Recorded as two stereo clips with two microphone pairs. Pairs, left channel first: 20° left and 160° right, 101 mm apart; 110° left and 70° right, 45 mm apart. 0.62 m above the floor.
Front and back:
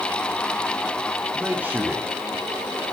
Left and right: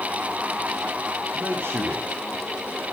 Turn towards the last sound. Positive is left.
turn(degrees=-90)